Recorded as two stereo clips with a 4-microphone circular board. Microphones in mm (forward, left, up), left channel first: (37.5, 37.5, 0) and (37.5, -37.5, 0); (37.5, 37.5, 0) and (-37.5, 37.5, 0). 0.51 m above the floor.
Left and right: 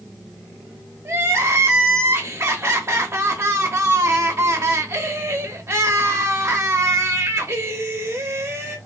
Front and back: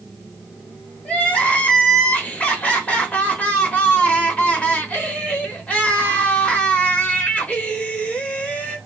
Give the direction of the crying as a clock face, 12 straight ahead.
2 o'clock.